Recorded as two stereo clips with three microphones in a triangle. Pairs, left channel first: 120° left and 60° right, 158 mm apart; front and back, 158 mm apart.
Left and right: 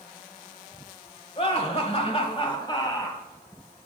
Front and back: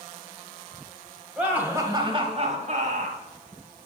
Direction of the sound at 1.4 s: 100° left.